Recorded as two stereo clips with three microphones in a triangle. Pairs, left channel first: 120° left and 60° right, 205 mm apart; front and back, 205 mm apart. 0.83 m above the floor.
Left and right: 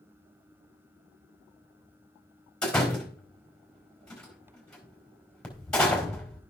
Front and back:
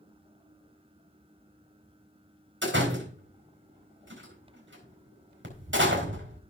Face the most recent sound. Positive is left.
turn(degrees=-155)